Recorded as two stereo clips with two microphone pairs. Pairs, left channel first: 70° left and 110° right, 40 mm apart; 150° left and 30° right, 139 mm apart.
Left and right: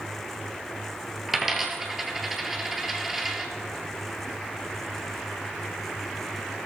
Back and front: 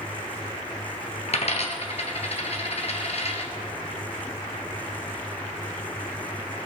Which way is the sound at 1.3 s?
165° left.